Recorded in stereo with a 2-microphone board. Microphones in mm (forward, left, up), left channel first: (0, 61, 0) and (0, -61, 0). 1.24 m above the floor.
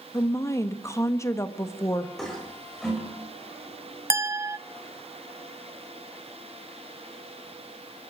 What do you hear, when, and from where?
0.1 s a woman speaking: 25° left (ahead or behind), 1.6 m
2.2 s a toilet flushing: centre (ahead or behind), 6.5 m
4.1 s a clink: 20° right (ahead or behind), 0.5 m